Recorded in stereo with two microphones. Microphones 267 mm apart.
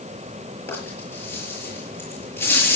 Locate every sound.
0.7 s a rattle: 10° left (ahead or behind), 7 m